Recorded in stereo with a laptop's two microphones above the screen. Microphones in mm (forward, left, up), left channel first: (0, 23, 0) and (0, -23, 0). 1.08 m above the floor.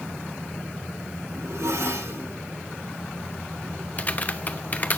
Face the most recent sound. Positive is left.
turn(degrees=40)  # may be behind; listen again after turning